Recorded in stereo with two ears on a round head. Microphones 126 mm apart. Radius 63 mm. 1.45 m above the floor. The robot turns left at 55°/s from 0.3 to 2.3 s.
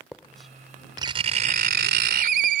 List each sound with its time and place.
0.1 s writing: 5° left; by 2.6 s 105° right